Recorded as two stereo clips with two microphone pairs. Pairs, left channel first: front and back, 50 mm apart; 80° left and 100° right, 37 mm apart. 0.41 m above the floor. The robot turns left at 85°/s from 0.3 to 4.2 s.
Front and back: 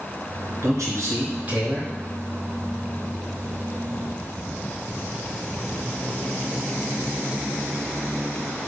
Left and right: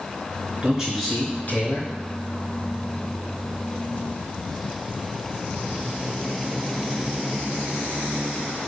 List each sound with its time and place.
0.6 s a man speaking: 160° right, 4.5 m; by 1.9 s 85° left, 4.5 m